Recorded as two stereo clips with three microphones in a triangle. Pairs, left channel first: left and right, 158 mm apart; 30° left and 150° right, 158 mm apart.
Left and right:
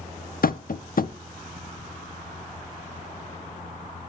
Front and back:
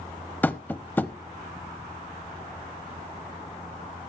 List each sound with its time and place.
0.4 s tapping: 105° left, 0.5 m